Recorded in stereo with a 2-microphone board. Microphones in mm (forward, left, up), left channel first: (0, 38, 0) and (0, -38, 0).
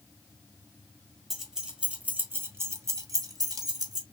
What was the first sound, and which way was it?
Keys jangling, centre (ahead or behind).